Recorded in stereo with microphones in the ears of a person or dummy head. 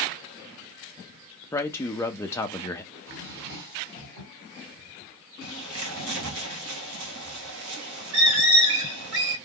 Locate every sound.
1.5 s a man speaking: 10° left (ahead or behind), 0.6 m
2.9 s a drawer: 60° right (ahead or behind), 2 m
5.4 s a bird: 85° right, 1.1 m